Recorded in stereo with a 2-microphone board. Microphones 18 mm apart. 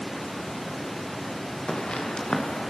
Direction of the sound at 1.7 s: 80° left.